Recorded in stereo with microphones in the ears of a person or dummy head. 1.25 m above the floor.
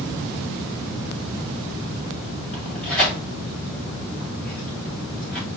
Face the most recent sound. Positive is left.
turn(degrees=5)  # may be behind; listen again after turning